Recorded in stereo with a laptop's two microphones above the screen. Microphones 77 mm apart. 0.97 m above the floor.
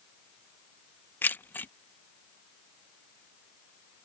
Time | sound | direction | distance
1.2 | keys jangling | 25° left (ahead or behind) | ?